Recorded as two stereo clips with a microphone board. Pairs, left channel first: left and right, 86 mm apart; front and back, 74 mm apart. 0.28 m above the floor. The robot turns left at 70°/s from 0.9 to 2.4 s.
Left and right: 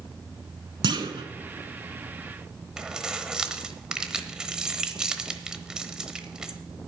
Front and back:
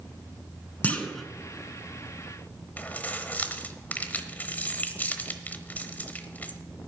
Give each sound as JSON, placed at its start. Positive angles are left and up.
{"t": 0.8, "sound": "a clunk", "azimuth_deg": -70, "distance_m": 1.2}
{"t": 2.8, "sound": "keys jangling", "azimuth_deg": -20, "distance_m": 1.0}